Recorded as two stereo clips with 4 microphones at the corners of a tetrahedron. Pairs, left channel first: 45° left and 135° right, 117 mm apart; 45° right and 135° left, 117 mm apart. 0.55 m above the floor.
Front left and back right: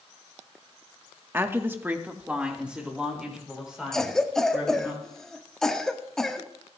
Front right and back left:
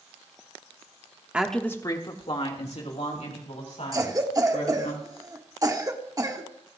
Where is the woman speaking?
165° right, 0.9 m; by 4.9 s 50° right, 5 m.